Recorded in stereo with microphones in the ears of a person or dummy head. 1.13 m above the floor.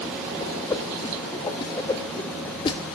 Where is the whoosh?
20° left (ahead or behind), 0.6 m.